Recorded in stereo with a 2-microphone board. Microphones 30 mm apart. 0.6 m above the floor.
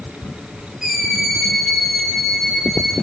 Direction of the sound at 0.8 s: 15° right (ahead or behind).